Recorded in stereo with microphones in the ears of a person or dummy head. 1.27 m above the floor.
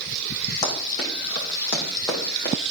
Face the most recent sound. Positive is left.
turn(degrees=20)  # may be behind; listen again after turning